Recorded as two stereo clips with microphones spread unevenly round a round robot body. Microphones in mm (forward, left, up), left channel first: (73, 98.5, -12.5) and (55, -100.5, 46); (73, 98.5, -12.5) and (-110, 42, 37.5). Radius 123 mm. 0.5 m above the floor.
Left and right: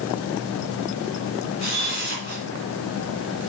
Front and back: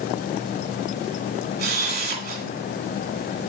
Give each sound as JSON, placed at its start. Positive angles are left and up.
{"t": 1.6, "sound": "a camera shutter", "azimuth_deg": 155, "distance_m": 2.5}